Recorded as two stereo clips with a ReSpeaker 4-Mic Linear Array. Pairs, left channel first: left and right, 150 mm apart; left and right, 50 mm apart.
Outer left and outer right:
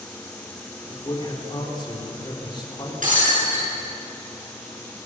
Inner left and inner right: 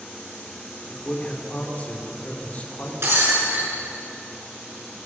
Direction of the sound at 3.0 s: 65° right (ahead or behind).